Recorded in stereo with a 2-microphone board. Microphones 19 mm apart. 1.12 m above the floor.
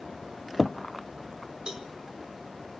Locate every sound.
1.7 s a cowbell: 45° right (ahead or behind), 2 m